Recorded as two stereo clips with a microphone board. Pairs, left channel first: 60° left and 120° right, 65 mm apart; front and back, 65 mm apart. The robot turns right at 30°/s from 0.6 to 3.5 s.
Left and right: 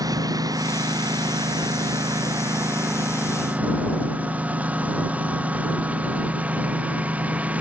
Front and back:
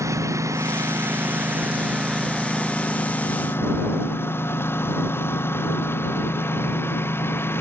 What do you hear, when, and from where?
0.0 s a lawn mower: 140° right; by 7.6 s 50° right